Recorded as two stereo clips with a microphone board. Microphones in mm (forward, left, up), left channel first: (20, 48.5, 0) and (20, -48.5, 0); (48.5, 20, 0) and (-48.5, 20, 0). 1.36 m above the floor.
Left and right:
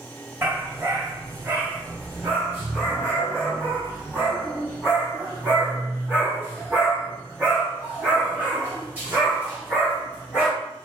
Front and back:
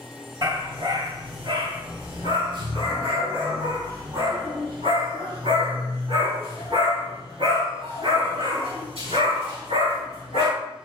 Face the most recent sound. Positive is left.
turn(degrees=-165)